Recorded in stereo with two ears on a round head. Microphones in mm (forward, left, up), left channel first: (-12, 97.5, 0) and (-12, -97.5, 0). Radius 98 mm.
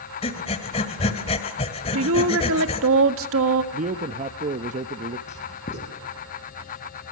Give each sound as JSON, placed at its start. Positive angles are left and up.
{"t": 0.2, "sound": "breathing", "side_deg": 25, "distance_m": 1.9}
{"t": 1.9, "sound": "a woman speaking", "side_deg": -70, "distance_m": 1.7}
{"t": 3.7, "sound": "a man speaking", "side_deg": -35, "distance_m": 0.7}
{"t": 5.3, "sound": "writing", "side_deg": 35, "distance_m": 3.5}